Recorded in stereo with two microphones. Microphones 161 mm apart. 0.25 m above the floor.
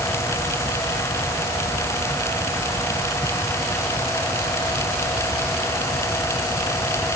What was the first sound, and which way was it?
Only background noise.